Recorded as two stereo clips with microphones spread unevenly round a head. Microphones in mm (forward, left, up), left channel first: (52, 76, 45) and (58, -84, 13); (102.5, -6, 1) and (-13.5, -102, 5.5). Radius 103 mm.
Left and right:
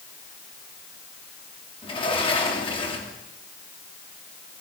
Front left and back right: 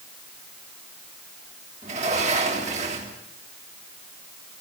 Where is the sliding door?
160° left, 2.5 m.